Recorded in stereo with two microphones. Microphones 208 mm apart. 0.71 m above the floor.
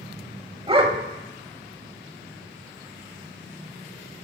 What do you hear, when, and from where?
0.7 s a dog barking: 25° right (ahead or behind), 0.9 m